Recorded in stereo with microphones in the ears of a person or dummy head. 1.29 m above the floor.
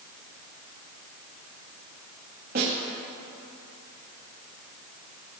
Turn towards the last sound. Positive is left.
turn(degrees=-50)  # may be behind; listen again after turning